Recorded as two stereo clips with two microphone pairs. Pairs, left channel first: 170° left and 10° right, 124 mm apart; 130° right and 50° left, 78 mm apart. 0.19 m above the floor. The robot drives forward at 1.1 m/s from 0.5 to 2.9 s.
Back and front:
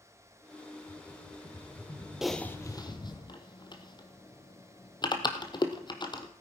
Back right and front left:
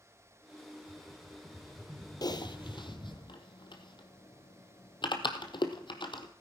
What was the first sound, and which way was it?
A rattle, 75° left.